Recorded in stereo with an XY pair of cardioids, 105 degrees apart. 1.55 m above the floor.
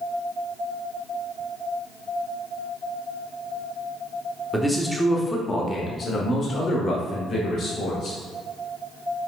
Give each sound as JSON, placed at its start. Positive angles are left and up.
{"t": 4.5, "sound": "a man speaking", "azimuth_deg": -10, "distance_m": 1.0}